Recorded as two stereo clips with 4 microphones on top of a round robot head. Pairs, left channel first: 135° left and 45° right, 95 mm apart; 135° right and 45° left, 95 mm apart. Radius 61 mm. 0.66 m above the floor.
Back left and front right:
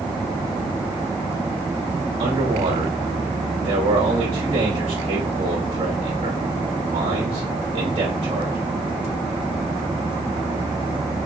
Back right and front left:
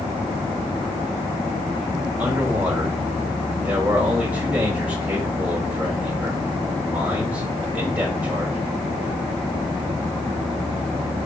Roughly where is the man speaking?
Ahead right.